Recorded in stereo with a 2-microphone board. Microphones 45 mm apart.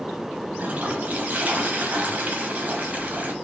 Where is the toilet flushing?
40° right (ahead or behind), 1.0 m.